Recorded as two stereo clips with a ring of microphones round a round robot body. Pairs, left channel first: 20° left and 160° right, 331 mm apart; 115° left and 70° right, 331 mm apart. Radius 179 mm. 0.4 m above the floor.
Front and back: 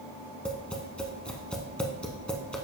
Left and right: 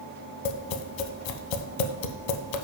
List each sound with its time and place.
0.5 s tapping: 110° left, 0.6 m